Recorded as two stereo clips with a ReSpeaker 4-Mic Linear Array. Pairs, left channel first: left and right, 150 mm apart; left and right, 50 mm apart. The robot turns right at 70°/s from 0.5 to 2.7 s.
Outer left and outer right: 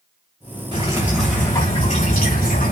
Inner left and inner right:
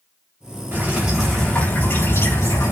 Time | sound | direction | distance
0.7 | dripping | 35° right | 5.5 m